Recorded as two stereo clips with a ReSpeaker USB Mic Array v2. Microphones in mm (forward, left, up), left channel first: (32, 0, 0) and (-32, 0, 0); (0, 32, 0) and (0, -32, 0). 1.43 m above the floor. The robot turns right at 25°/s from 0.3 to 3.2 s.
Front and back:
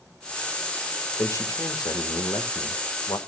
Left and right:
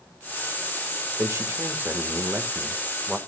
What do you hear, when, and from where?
1.2 s a man speaking: 45° right, 1.6 m; by 3.2 s 5° left, 1.6 m